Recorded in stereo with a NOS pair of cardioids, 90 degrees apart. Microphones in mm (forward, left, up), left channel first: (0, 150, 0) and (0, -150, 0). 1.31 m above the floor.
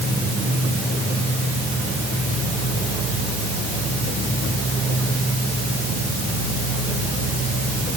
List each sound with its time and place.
Only background noise.